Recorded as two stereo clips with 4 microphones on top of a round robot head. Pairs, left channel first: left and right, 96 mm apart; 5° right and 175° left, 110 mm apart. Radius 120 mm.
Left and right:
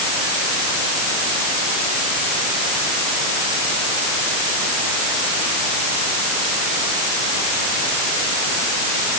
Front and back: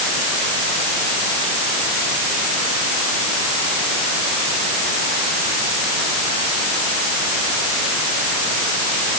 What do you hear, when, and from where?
Only background noise.